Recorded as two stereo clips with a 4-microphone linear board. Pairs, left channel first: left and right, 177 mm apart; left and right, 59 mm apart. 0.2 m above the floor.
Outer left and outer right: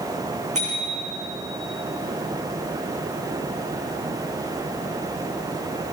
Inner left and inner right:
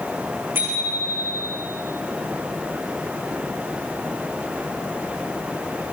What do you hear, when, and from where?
0.6 s a bicycle bell: 40° right (ahead or behind), 9.5 m